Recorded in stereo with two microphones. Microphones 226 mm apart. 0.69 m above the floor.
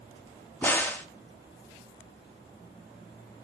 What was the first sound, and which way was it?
A crack, 10° left (ahead or behind).